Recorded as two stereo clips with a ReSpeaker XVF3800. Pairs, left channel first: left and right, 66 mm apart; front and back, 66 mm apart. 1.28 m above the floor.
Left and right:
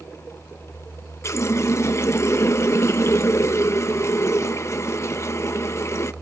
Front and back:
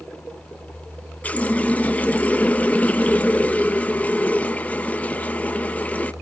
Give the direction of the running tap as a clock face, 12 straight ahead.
10 o'clock.